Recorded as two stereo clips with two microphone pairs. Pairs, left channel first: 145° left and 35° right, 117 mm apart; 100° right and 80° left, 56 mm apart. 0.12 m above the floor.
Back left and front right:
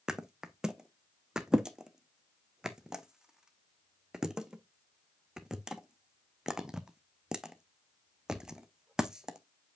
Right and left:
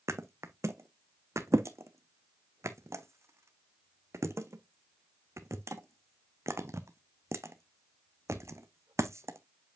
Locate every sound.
0.1 s a thud: 50° left, 0.8 m